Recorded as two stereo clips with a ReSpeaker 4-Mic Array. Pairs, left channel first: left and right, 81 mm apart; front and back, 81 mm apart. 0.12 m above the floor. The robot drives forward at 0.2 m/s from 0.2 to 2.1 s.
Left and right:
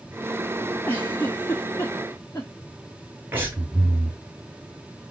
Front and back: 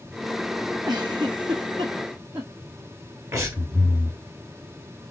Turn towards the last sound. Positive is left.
turn(degrees=-145)